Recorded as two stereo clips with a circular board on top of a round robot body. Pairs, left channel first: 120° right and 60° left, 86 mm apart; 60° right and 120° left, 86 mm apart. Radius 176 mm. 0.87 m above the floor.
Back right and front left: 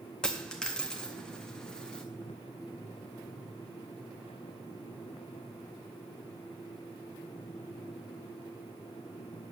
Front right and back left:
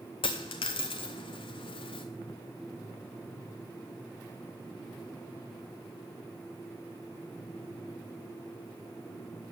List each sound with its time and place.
0.2 s a dropped coin: 40° right, 0.6 m